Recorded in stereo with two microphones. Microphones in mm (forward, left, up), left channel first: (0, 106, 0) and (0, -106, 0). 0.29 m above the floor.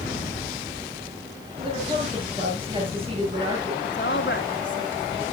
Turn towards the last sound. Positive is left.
turn(degrees=60)  # may be behind; listen again after turning